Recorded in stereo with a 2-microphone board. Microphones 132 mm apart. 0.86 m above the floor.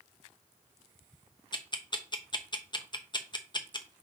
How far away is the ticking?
About 0.8 m.